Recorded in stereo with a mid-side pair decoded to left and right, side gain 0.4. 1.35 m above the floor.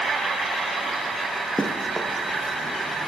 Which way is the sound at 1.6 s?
5° right.